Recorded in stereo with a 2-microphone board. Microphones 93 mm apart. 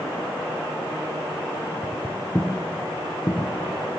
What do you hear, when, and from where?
1.8 s footsteps: 10° left (ahead or behind), 1.7 m; by 3.5 s 40° left (ahead or behind), 3 m